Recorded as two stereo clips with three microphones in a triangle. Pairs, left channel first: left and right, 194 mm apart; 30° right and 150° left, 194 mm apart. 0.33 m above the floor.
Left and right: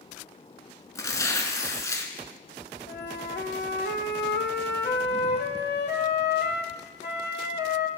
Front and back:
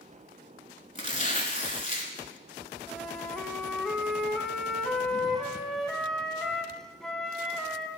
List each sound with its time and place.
0.9 s tearing paper: 15° left, 0.8 m
2.9 s a flute: 55° left, 0.5 m